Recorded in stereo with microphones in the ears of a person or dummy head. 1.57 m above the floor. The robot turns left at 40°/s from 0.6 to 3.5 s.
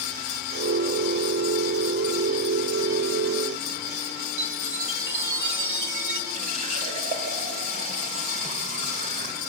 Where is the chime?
70° right (ahead or behind), 2 m.